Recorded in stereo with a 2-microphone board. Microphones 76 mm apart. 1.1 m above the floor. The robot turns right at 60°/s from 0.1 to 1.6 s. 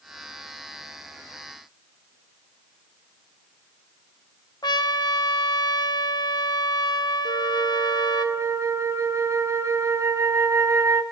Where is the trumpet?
70° left (ahead or behind), 0.7 m.